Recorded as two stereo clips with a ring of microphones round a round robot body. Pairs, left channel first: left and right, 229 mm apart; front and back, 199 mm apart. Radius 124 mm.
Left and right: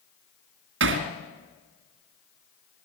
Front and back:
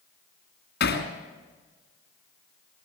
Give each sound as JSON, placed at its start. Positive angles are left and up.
{"t": 0.8, "sound": "hammering", "azimuth_deg": -50, "distance_m": 2.5}